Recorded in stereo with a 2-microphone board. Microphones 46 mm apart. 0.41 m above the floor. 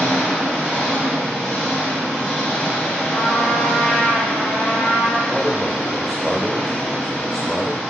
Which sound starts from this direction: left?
A trumpet, at 3.1 s.